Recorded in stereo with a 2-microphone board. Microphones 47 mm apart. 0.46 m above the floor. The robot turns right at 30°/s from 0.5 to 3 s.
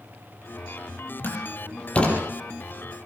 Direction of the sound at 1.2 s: 45° left (ahead or behind).